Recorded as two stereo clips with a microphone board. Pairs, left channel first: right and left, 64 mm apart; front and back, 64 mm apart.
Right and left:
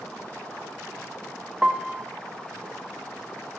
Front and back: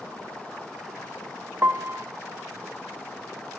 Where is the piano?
155° left, 0.5 m.